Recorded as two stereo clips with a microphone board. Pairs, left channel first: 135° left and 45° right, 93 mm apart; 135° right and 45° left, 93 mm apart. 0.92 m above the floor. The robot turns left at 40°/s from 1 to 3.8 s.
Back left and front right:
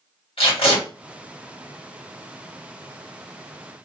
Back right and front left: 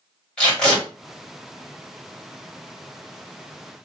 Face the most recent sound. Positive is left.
turn(degrees=35)